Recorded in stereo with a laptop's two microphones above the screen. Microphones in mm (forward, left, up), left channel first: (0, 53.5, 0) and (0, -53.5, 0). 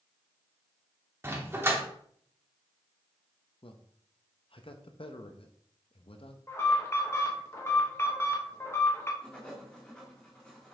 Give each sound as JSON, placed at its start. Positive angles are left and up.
{"t": 1.2, "sound": "a dog barking", "side_deg": -25, "distance_m": 0.9}
{"t": 3.6, "sound": "a man speaking", "side_deg": 55, "distance_m": 0.7}
{"t": 6.5, "sound": "an alarm", "side_deg": 25, "distance_m": 1.2}
{"t": 9.2, "sound": "writing", "side_deg": 10, "distance_m": 1.7}